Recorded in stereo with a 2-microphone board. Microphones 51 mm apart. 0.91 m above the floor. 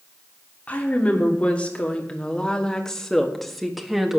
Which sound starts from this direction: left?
A woman speaking, at 0.7 s.